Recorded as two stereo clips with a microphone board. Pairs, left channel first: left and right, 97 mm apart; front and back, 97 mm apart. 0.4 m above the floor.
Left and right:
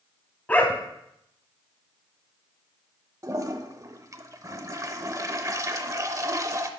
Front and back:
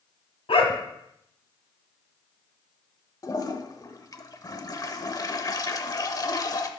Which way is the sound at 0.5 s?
15° left.